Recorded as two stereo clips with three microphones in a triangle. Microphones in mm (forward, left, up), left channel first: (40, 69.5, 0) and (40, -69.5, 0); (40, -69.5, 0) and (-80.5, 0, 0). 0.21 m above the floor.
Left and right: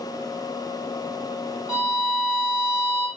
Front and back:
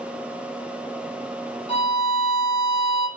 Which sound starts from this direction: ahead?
A violin, at 1.7 s.